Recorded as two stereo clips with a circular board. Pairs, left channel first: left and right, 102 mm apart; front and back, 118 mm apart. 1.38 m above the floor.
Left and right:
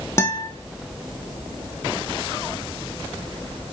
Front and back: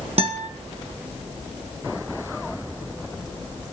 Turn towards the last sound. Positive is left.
turn(degrees=150)